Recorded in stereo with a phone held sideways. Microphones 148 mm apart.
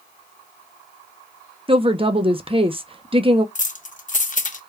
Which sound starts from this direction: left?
Keys jangling, at 3.5 s.